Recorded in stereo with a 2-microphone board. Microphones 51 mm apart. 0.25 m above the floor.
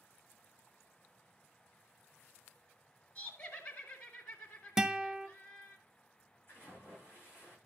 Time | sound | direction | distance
3.1 | laughter | 40° left (ahead or behind) | 2 m
4.8 | a guitar | 10° right (ahead or behind) | 0.7 m
6.5 | a splash | 45° left (ahead or behind) | 10 m